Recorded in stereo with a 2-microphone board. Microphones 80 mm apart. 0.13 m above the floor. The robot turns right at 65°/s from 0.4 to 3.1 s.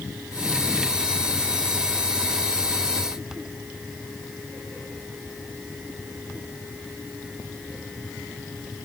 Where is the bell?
I don't hear a bell.